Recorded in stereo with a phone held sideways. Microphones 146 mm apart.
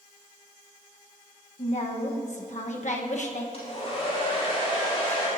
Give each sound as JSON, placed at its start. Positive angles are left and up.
{"t": 1.6, "sound": "a woman speaking", "side_deg": 55, "distance_m": 1.1}
{"t": 3.5, "sound": "a hair dryer", "side_deg": 45, "distance_m": 5.5}